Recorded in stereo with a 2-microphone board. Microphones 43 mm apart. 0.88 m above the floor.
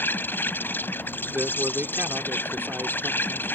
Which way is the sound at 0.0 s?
50° left (ahead or behind).